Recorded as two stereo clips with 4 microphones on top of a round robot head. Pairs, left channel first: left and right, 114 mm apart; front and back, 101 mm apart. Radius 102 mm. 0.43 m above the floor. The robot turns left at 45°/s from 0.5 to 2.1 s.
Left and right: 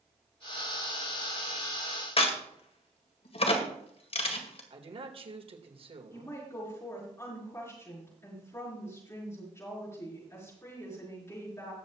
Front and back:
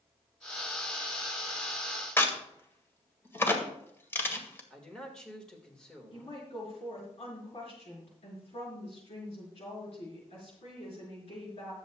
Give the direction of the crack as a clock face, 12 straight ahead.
10 o'clock.